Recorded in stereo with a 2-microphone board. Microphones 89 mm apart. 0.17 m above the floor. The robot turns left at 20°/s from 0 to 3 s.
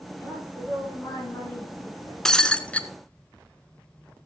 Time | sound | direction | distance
0.2 | a woman speaking | 170° right | 7.5 m
2.2 | breaking glass | 5° left (ahead or behind) | 0.8 m